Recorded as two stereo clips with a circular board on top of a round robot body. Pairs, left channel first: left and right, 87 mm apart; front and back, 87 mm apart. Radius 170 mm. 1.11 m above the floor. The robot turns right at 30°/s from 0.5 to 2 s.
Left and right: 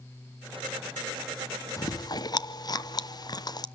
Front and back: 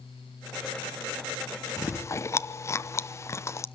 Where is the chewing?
50° left, 1.1 m; by 3.6 s 55° left, 1.1 m.